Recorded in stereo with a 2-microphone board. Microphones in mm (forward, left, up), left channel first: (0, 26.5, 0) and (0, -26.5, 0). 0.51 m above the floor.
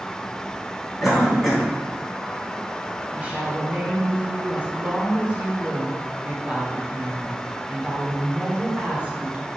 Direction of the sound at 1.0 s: 5° right (ahead or behind).